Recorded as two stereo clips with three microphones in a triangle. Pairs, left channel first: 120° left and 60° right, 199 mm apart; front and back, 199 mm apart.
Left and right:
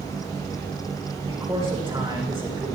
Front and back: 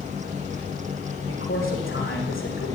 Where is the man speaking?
10° left, 7.5 m.